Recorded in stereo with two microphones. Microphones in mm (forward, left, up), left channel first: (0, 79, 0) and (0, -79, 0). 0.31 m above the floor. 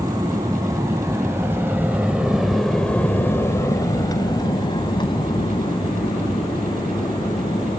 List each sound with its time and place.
0.0 s an aircraft: 20° right (ahead or behind); by 7.8 s 30° left (ahead or behind)